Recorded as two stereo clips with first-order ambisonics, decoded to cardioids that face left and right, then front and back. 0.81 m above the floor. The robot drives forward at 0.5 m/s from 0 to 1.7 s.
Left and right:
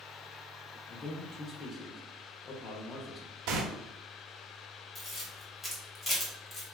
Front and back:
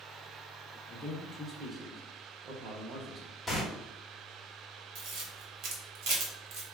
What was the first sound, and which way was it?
A man speaking, 35° left.